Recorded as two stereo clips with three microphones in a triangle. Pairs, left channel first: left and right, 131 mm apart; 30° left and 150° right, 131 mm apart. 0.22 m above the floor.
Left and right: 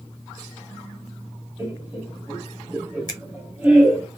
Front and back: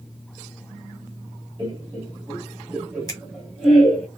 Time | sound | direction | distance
1.6 | laughter | 150° right | 1.9 m
3.1 | a finger snap | 60° left | 1.4 m